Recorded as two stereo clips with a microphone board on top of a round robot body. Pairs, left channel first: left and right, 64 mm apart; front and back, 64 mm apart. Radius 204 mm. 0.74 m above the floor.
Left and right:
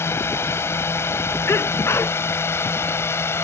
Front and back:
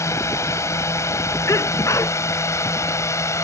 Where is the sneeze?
40° left.